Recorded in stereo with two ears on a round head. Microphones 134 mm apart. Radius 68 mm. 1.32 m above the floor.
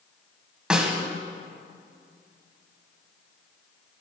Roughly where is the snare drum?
Centre.